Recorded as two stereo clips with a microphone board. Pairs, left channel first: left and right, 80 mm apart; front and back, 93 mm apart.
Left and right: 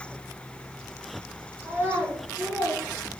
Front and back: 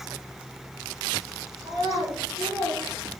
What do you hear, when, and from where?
1.6 s a child speaking: 155° right, 3.5 m